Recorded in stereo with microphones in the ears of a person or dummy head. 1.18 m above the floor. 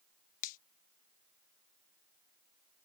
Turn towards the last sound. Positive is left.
turn(degrees=50)  # may be behind; listen again after turning